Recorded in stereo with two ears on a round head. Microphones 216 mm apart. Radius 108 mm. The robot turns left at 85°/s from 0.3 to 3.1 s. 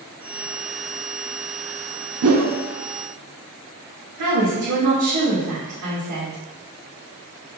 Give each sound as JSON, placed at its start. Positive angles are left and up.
{"t": 2.2, "sound": "a whoosh", "side_deg": -70, "distance_m": 1.2}
{"t": 4.2, "sound": "a woman speaking", "side_deg": -80, "distance_m": 2.0}